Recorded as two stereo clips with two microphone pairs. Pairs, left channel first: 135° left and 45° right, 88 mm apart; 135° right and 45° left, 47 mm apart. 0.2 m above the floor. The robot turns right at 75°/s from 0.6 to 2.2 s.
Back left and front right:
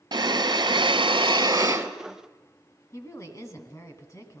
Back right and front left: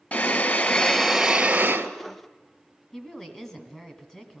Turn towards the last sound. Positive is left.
turn(degrees=160)